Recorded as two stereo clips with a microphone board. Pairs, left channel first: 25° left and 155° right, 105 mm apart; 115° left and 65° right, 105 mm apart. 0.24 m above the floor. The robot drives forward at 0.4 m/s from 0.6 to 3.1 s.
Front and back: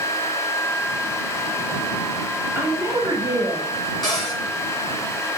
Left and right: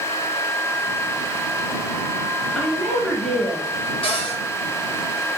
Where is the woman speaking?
170° right, 1.0 m; by 3.7 s 175° right, 1.1 m.